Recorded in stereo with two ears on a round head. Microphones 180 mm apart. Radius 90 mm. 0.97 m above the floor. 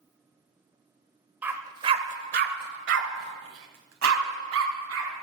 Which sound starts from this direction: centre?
A dog barking, at 1.4 s.